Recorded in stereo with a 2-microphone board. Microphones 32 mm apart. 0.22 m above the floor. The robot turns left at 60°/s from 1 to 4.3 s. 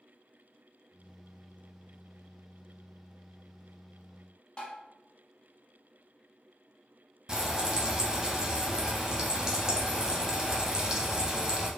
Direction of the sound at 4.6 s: 30° left (ahead or behind).